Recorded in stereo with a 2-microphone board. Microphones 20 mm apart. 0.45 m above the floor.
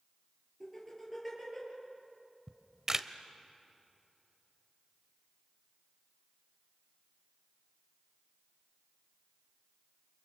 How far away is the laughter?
About 10 m.